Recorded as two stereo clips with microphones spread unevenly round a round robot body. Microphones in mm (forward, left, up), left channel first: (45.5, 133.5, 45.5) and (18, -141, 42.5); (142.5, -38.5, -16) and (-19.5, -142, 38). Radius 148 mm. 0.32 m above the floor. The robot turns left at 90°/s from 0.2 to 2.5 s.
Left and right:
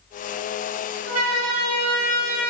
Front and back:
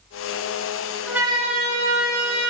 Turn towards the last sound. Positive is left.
turn(degrees=175)